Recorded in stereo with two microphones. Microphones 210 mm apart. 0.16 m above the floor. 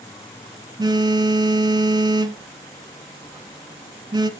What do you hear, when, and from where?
0.8 s a phone buzzing: 20° right (ahead or behind), 0.5 m